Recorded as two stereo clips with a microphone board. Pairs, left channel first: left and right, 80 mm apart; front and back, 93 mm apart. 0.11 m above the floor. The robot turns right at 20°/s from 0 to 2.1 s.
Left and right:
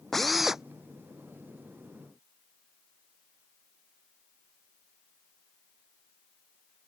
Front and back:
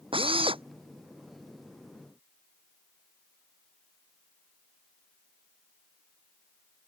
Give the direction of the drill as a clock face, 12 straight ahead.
6 o'clock.